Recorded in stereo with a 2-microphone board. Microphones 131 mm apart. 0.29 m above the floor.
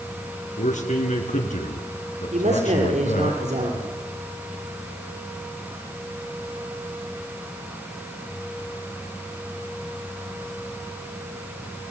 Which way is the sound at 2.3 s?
65° right (ahead or behind).